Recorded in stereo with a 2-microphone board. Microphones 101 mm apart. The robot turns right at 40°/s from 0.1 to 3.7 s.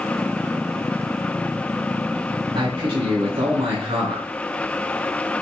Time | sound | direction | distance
2.5 | a man speaking | 120° right | 4 m